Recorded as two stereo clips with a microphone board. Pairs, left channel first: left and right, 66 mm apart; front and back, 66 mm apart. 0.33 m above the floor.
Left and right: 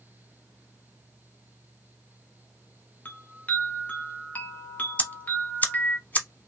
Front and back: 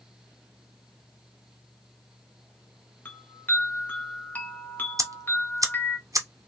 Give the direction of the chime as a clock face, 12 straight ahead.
11 o'clock.